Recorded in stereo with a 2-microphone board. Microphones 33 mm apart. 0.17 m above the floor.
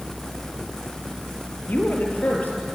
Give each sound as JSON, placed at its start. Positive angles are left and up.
{"t": 1.7, "sound": "a woman speaking", "side_deg": 55, "distance_m": 4.0}